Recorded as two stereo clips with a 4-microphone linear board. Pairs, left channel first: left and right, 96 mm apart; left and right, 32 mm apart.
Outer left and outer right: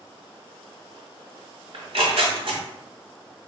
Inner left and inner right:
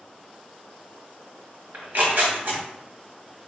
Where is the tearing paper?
70° right (ahead or behind), 1.7 m.